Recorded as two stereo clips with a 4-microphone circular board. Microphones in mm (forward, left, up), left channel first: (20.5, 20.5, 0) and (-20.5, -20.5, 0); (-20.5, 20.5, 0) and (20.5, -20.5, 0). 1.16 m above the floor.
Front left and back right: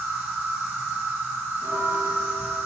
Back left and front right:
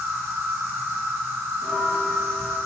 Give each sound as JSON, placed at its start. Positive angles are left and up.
{"t": 0.0, "sound": "an insect", "azimuth_deg": -75, "distance_m": 2.0}
{"t": 1.6, "sound": "a bell", "azimuth_deg": -130, "distance_m": 1.6}